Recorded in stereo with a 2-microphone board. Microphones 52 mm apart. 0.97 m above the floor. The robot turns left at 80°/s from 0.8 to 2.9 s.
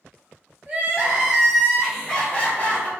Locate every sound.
0.7 s crying: 25° right (ahead or behind), 0.9 m; by 2.9 s 30° left (ahead or behind), 0.9 m